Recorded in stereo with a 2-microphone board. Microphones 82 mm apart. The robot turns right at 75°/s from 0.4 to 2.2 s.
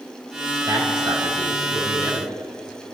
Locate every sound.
0.7 s a man speaking: 140° right, 5 m; by 2.4 s 25° right, 5 m